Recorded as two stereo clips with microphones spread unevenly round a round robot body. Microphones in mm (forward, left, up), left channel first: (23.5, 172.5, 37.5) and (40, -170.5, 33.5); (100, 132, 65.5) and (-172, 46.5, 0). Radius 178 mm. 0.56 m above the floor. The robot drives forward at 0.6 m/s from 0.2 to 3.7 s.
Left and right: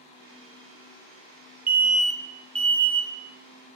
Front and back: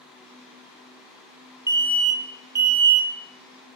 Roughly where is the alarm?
Behind right.